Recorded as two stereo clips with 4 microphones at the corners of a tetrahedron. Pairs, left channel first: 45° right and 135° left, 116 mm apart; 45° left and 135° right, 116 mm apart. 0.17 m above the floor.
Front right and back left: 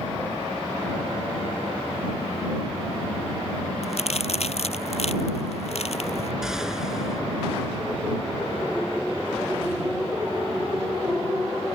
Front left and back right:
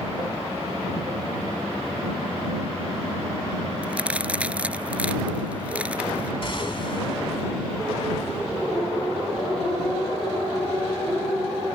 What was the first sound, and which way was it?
A crack, 55° right.